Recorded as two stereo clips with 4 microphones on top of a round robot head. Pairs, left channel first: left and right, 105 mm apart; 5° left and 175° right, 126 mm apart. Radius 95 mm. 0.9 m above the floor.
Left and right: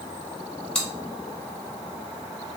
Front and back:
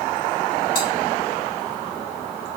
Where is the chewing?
10° left, 2.5 m.